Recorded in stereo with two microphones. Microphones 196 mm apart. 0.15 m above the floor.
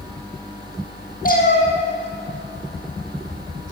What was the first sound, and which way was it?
A cat meowing, 50° left (ahead or behind).